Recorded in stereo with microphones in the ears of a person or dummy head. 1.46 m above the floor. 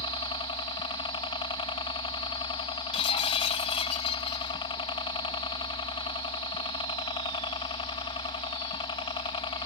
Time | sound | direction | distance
0.0 | a helicopter | 30° left (ahead or behind) | ?
2.9 | breaking glass | 35° left (ahead or behind) | ?